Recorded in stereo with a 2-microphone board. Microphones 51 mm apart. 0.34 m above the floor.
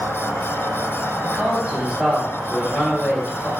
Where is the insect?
50° right (ahead or behind), 1.5 m.